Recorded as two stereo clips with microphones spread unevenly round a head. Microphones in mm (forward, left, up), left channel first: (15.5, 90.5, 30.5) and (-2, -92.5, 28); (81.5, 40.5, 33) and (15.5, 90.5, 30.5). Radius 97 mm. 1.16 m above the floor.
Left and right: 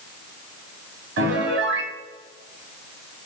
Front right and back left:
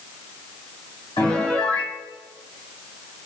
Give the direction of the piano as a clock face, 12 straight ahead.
3 o'clock.